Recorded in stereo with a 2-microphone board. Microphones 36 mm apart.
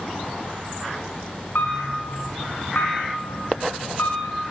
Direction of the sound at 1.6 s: 70° left (ahead or behind).